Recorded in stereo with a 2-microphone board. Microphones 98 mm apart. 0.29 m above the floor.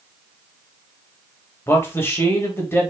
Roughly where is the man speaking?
Left.